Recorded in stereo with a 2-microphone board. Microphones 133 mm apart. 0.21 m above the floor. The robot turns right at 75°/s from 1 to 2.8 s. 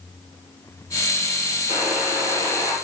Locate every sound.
1.7 s a buzzer: 90° left, 4.5 m; by 2.8 s 170° left, 4.5 m